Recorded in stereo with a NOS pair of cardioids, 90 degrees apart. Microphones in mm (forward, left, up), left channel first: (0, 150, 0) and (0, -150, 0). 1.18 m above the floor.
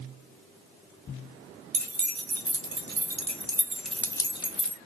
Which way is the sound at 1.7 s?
70° right.